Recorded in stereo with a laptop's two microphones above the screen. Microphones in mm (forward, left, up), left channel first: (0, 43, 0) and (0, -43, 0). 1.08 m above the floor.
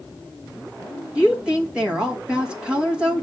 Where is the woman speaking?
10° right (ahead or behind), 1.5 m.